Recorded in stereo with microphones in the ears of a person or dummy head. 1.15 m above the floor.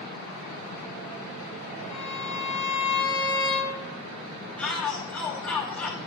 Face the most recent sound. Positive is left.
turn(degrees=5)  # may be behind; listen again after turning